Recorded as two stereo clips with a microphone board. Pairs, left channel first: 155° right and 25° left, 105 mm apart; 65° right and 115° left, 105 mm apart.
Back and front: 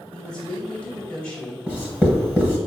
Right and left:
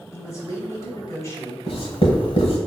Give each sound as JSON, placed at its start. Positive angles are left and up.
{"t": 0.1, "sound": "a woman speaking", "azimuth_deg": -90, "distance_m": 1.1}
{"t": 1.7, "sound": "writing", "azimuth_deg": -55, "distance_m": 1.0}